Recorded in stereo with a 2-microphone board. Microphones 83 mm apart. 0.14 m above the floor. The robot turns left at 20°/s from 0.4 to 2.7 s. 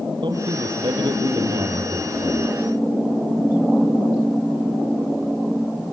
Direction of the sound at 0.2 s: 95° right.